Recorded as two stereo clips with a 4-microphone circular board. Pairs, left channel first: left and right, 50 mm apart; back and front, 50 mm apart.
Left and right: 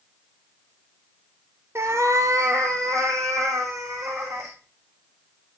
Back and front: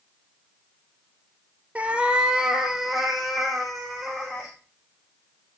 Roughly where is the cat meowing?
Ahead right.